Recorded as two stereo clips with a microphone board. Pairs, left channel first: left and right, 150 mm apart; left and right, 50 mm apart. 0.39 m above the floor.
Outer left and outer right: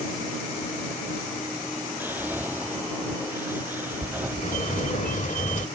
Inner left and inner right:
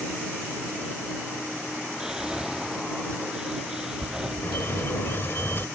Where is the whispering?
10° right (ahead or behind).